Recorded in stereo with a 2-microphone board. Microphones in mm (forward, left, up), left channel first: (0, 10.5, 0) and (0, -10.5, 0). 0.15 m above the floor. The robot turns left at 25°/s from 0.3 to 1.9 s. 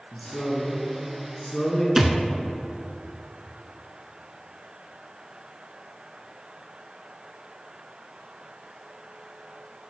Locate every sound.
0.1 s a man speaking: 110° left, 1.7 m; by 1.9 s 70° left, 1.7 m
2.0 s a thud: 25° right (ahead or behind), 0.6 m